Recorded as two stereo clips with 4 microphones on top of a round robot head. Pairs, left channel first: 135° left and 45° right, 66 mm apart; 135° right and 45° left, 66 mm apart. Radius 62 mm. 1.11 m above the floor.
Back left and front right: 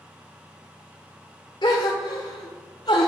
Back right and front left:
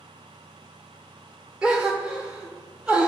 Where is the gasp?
115° left, 0.9 m.